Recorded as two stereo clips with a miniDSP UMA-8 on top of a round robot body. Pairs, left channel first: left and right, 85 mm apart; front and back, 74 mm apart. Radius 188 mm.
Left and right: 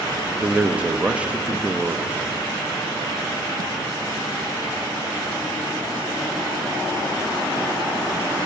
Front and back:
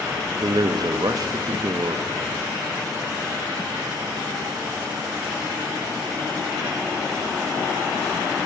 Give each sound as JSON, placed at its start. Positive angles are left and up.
{"t": 0.4, "sound": "a man speaking", "azimuth_deg": -165, "distance_m": 0.6}